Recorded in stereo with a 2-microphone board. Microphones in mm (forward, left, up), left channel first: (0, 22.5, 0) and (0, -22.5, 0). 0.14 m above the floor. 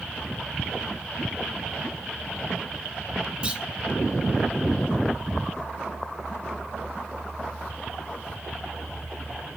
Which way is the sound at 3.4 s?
25° right (ahead or behind).